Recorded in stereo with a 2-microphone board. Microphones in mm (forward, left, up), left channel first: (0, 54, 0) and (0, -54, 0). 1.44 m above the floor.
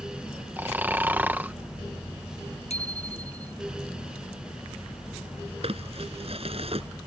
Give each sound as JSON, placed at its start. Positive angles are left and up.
{"t": 0.6, "sound": "snoring", "side_deg": -15}
{"t": 2.7, "sound": "a bicycle bell", "side_deg": 80}
{"t": 5.6, "sound": "crumpling", "side_deg": -65}